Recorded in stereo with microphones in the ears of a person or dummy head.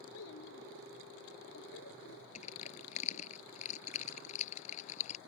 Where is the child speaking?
85° left; by 2.2 s 80° left.